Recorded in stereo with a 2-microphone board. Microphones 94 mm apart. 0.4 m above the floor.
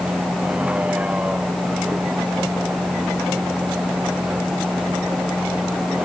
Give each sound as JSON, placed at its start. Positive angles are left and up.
{"t": 0.0, "sound": "a vehicle", "side_deg": -15}